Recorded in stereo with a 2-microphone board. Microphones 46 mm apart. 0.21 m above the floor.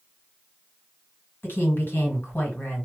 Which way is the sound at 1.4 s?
50° left (ahead or behind).